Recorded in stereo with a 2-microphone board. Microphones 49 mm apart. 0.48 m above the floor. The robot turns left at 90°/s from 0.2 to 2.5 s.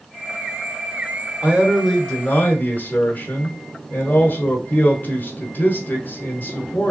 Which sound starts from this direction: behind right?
A man speaking, at 1.4 s.